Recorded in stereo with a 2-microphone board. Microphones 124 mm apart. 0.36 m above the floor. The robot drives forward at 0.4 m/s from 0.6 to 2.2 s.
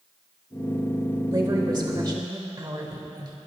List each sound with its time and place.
1.3 s a woman speaking: 35° right (ahead or behind), 1.5 m